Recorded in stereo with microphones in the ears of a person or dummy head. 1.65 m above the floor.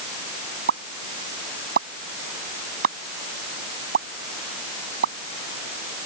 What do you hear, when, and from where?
0.7 s a pop: 60° right (ahead or behind)